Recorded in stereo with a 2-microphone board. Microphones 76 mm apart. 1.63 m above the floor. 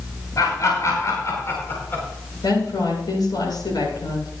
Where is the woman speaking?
65° left (ahead or behind), 7.5 m.